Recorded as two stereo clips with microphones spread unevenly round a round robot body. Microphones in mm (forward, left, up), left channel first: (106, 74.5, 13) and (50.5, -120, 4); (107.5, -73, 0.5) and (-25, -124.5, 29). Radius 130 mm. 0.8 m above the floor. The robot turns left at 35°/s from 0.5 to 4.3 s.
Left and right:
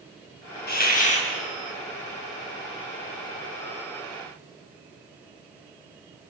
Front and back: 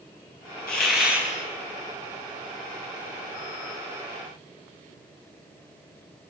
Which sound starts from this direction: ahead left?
A hiss, at 0.7 s.